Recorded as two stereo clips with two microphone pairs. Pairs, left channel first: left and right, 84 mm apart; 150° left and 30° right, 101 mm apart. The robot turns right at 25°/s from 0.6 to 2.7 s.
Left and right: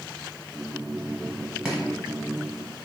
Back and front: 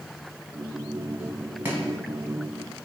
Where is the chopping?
40° right, 1.0 m; by 1.8 s 35° right, 1.0 m.